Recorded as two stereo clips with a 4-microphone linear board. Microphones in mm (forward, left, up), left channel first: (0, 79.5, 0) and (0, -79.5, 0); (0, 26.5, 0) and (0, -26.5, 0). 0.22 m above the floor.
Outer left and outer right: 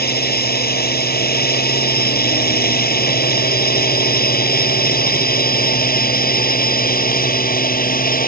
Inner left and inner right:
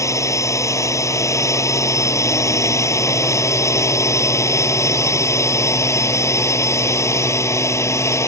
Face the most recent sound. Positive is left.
turn(degrees=60)  # may be behind; listen again after turning